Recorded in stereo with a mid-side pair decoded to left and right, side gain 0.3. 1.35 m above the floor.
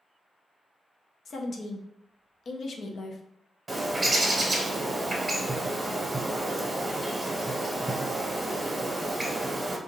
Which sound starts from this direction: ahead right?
A bird, at 3.7 s.